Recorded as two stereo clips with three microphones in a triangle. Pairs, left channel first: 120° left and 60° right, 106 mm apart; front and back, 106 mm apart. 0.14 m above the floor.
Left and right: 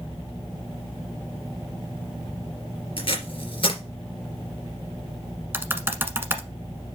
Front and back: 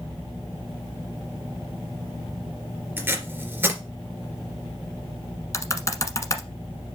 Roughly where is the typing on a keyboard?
Ahead.